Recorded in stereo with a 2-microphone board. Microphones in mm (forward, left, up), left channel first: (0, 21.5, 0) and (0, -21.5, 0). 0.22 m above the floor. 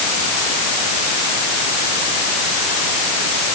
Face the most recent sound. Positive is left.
No sound to turn to.